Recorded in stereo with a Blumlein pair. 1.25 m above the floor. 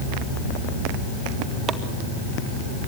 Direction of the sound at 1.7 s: 20° right.